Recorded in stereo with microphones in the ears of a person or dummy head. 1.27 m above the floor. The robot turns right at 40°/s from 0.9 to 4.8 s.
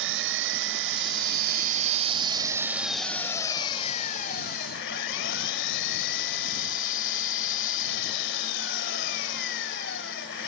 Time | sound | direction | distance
0.0 | an engine running | 85° right | ?